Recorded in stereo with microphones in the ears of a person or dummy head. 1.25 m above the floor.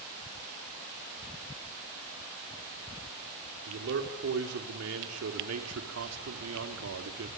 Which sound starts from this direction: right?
A man speaking, at 3.7 s.